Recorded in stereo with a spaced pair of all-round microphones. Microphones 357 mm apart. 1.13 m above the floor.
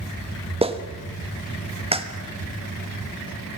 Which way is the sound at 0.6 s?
15° right (ahead or behind).